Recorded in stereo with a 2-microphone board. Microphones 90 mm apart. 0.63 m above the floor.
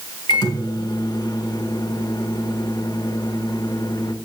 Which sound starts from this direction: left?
A microwave, at 0.3 s.